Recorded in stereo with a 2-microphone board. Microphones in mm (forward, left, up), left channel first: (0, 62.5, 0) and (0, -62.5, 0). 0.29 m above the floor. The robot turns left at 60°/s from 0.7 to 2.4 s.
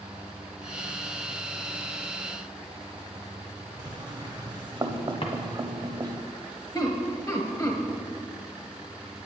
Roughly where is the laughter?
Left.